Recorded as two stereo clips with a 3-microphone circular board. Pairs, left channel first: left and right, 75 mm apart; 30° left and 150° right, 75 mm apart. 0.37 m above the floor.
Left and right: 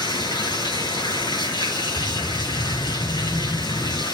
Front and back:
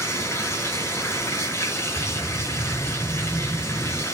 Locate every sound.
0.0 s running water: 85° left, 5.5 m
2.0 s a whoosh: 160° left, 2.5 m